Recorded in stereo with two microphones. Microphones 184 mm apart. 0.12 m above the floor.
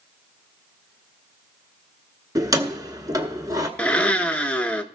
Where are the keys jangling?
20° right (ahead or behind), 1.1 m.